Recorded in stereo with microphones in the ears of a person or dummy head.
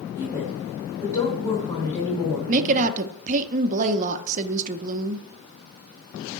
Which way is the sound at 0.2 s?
15° left (ahead or behind).